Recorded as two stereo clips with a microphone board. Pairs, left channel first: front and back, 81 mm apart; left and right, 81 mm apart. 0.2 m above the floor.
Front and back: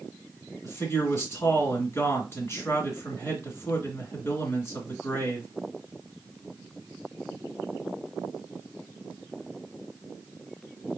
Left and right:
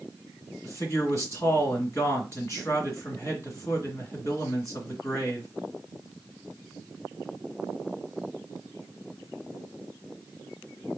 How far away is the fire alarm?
I don't hear a fire alarm.